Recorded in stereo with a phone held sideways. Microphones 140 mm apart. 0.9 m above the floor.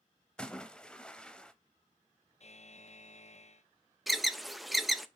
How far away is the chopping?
No chopping in this recording.